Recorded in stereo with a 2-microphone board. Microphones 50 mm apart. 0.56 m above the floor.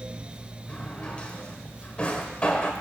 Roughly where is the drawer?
Left.